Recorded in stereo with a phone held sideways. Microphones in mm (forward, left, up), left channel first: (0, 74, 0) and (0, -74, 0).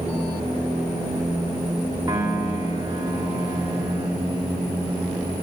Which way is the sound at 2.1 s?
25° right (ahead or behind).